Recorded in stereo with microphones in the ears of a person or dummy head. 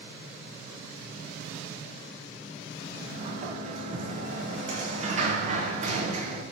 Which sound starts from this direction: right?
A sliding door, at 2.9 s.